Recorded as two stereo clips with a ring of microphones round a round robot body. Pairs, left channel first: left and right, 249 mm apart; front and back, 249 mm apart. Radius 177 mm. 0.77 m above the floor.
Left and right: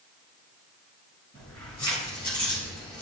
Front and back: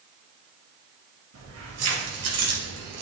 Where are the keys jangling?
165° left, 3 m; by 3.0 s 170° left, 1.6 m.